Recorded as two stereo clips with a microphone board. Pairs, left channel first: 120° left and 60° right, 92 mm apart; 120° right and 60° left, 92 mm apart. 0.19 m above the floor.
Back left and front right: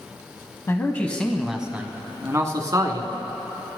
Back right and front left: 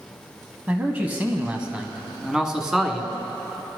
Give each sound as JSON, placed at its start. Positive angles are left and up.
{"t": 0.7, "sound": "a man speaking", "azimuth_deg": 105, "distance_m": 1.0}